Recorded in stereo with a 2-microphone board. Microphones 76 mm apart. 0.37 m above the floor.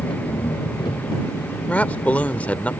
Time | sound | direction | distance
0.0 | an engine running | 75° left (ahead or behind) | ?
1.7 | a man speaking | 20° left (ahead or behind) | ?